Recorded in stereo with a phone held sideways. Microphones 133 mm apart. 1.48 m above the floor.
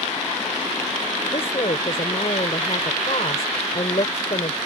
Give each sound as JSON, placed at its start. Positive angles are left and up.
{"t": 1.3, "sound": "a woman speaking", "side_deg": 50}